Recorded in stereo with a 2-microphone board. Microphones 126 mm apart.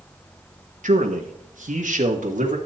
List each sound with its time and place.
0.8 s a man speaking: 80° right, 1.2 m; by 2.6 s 75° right (ahead or behind), 2 m